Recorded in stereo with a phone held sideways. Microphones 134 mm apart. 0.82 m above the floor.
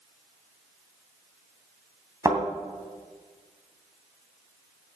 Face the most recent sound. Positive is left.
turn(degrees=-25)  # may be behind; listen again after turning